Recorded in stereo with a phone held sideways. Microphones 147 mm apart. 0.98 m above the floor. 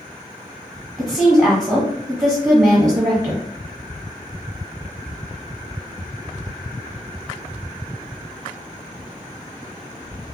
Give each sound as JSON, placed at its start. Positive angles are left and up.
{"t": 1.0, "sound": "a woman speaking", "side_deg": -25, "distance_m": 1.3}